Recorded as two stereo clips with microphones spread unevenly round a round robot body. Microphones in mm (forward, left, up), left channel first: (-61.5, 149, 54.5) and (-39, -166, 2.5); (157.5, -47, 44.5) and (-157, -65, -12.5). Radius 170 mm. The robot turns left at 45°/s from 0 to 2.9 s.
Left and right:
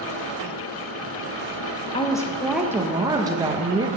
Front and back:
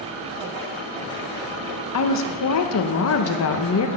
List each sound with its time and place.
1.9 s a woman speaking: 15° left, 0.8 m; by 3.9 s 25° right, 0.8 m